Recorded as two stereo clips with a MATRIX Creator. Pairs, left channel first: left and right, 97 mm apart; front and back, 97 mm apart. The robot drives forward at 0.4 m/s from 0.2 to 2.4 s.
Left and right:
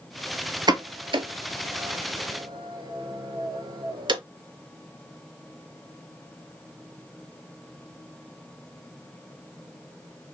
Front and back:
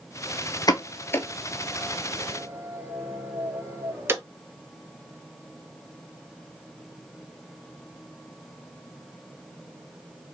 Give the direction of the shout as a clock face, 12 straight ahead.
I don't hear a shout.